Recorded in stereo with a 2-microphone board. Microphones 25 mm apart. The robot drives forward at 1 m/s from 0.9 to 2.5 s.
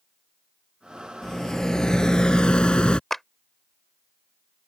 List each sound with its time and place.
1.2 s a rattle: 20° left (ahead or behind); by 3.0 s 40° left (ahead or behind)
3.1 s a clap: 10° left (ahead or behind)